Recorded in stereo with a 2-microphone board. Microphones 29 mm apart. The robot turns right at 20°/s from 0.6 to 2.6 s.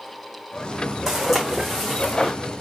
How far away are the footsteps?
About 2.5 m.